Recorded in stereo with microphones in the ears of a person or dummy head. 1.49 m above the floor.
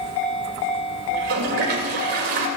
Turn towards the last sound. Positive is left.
turn(degrees=-55)  # may be behind; listen again after turning